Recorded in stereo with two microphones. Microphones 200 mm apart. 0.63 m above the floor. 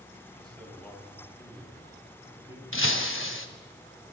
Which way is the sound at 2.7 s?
85° left.